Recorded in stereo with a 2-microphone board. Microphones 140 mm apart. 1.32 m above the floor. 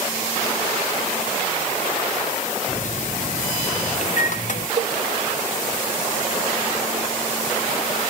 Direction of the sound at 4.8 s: 85° right.